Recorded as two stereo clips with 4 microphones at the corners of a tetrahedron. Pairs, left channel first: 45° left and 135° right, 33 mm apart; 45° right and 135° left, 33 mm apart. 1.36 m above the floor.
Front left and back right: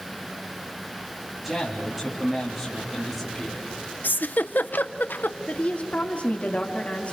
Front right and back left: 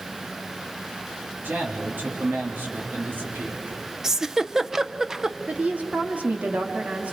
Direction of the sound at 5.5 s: 90° left.